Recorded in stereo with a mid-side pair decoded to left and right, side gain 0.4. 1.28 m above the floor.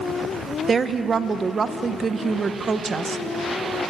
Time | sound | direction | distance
0.7 | a woman speaking | 45° right | 1.2 m